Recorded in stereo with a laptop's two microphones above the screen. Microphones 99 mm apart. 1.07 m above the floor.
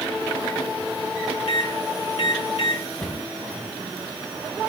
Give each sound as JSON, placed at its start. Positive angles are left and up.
{"t": 1.5, "sound": "a microwave", "side_deg": 80, "distance_m": 1.7}
{"t": 3.0, "sound": "a cupboard door", "side_deg": 10, "distance_m": 3.0}